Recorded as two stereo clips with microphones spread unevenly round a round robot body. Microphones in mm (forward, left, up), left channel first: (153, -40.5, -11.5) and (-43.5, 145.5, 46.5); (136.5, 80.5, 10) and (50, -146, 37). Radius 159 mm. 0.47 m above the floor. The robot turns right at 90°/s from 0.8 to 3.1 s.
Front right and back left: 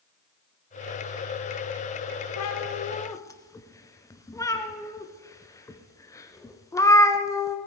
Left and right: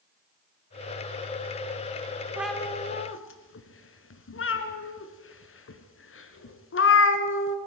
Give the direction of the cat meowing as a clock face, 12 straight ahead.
1 o'clock.